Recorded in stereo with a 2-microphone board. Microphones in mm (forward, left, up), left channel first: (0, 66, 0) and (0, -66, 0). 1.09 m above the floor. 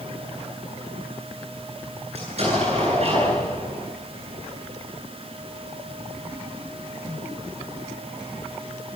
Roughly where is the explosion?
Right.